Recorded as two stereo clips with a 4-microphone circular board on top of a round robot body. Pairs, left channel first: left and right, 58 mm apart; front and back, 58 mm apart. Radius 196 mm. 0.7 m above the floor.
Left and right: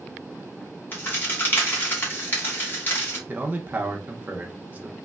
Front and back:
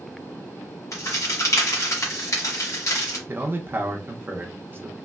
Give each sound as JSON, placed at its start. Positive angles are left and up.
{"t": 0.9, "sound": "a crack", "azimuth_deg": 30, "distance_m": 1.4}
{"t": 3.3, "sound": "a man speaking", "azimuth_deg": -145, "distance_m": 0.8}